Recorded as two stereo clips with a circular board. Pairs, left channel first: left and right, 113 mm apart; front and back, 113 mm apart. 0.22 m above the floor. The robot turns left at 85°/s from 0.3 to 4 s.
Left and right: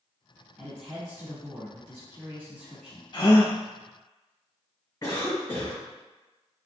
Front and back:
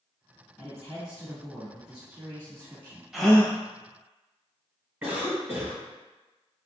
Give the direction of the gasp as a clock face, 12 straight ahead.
9 o'clock.